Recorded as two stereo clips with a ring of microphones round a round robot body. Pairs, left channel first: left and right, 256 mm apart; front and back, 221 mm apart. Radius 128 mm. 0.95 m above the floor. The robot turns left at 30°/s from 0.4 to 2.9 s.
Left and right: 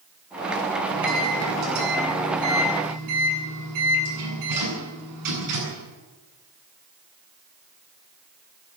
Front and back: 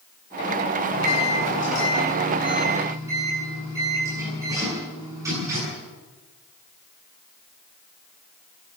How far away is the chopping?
No chopping in this recording.